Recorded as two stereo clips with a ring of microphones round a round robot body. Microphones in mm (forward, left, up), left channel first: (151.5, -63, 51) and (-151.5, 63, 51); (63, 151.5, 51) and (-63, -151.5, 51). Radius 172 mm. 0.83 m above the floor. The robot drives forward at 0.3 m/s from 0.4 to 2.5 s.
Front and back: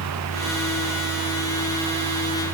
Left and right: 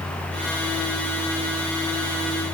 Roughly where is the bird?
No bird in this recording.